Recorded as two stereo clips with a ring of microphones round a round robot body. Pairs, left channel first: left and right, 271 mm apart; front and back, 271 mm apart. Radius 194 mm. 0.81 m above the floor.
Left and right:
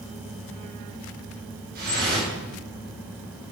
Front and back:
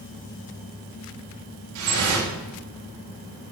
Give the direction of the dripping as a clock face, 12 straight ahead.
5 o'clock.